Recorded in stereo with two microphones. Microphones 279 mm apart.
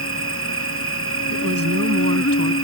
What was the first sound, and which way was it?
An insect, 50° left (ahead or behind).